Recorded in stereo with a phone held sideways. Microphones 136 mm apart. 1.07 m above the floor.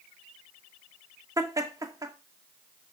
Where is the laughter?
25° right (ahead or behind), 2 m.